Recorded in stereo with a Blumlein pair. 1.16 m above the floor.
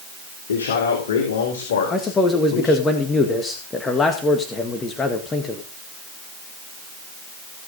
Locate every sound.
0.5 s a man speaking: 65° left, 3.5 m; by 2.9 s 55° left, 5.5 m
1.9 s a man speaking: 15° left, 1.8 m